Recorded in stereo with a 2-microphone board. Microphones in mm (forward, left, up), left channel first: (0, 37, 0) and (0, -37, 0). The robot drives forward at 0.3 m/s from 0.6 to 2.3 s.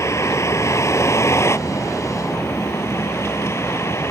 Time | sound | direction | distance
0.0 | a vehicle | 40° left (ahead or behind) | ?